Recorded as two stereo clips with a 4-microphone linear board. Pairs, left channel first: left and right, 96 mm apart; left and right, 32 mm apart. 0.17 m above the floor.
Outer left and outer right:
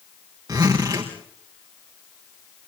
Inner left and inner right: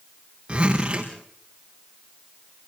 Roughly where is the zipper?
Right.